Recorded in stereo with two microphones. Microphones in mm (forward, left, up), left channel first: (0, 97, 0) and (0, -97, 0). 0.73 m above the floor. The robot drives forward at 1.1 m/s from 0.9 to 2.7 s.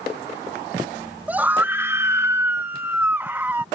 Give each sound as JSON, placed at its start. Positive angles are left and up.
{"t": 1.3, "sound": "a scream", "side_deg": -10}